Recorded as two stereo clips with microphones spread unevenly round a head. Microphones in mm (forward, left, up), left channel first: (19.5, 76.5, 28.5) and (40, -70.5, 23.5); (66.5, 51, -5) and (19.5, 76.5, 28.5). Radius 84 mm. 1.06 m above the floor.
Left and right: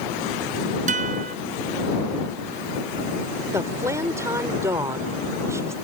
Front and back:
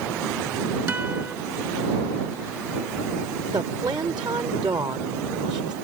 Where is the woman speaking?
155° right.